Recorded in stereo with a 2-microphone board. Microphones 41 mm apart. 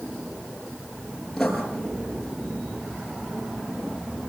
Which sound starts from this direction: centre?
Writing, at 1.4 s.